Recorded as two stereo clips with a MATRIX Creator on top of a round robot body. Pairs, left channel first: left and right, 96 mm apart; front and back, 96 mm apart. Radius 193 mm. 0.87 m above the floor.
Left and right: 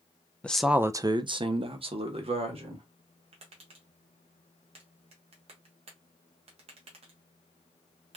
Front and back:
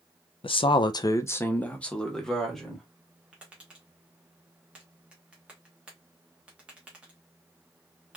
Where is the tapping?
100° right, 0.7 m.